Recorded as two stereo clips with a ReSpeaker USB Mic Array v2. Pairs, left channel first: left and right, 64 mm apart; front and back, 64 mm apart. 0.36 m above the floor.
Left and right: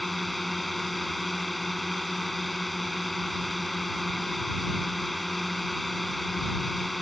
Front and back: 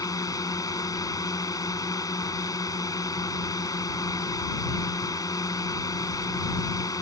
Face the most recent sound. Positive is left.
turn(degrees=0)